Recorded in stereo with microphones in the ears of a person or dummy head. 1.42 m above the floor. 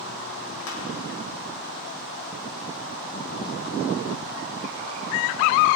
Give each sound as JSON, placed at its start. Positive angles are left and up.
{"t": 0.7, "sound": "crushing", "side_deg": 85, "distance_m": 4.0}